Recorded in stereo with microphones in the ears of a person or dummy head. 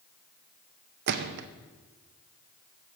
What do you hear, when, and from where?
1.1 s a gunshot: 55° right (ahead or behind), 0.6 m